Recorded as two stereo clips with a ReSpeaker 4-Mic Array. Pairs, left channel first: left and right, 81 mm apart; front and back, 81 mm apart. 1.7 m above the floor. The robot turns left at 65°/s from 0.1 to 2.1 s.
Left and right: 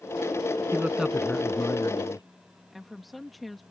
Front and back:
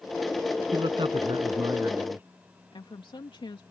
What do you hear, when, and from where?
0.7 s a man speaking: 155° right; by 2.3 s 115° left
2.7 s a woman speaking: straight ahead